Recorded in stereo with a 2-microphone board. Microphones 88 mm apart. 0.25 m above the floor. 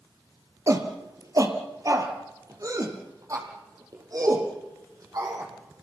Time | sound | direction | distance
0.7 | a shout | 40° right (ahead or behind) | 4.5 m